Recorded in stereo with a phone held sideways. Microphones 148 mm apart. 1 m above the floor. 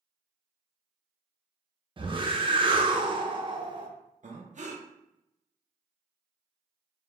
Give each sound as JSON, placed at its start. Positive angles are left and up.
{"t": 2.0, "sound": "a whoosh", "side_deg": -35, "distance_m": 0.7}
{"t": 4.2, "sound": "breathing", "side_deg": -55, "distance_m": 0.7}